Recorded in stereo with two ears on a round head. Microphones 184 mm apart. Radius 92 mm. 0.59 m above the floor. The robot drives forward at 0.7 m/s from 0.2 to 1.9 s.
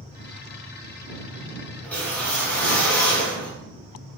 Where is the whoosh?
10° left (ahead or behind), 1.6 m.